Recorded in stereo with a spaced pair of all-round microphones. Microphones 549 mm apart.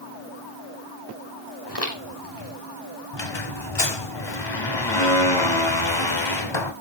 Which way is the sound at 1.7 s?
45° left (ahead or behind).